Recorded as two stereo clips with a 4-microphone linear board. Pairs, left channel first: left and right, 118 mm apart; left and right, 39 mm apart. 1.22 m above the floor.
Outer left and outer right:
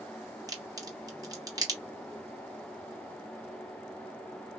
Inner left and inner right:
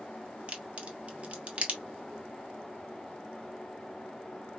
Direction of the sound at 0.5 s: 30° right (ahead or behind).